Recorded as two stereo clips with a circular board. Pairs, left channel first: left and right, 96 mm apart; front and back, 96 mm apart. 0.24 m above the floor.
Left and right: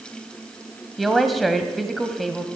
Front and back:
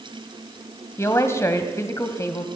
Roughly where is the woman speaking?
Ahead.